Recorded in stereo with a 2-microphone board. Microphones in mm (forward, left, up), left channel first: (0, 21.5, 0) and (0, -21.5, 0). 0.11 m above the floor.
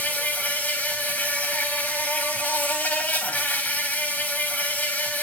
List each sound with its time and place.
0.0 s an insect: 50° left (ahead or behind), 3.5 m